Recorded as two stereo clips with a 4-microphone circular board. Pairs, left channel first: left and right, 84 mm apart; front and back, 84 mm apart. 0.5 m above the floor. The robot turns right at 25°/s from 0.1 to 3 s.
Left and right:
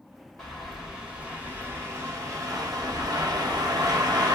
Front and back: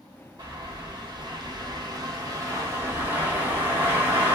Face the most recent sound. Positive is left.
turn(degrees=-120)